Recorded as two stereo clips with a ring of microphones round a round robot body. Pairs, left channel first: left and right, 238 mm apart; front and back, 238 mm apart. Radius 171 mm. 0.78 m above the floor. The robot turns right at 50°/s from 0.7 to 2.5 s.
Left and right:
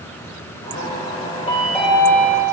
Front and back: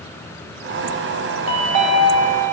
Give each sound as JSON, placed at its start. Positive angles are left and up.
{"t": 1.5, "sound": "a chime", "azimuth_deg": 160, "distance_m": 1.7}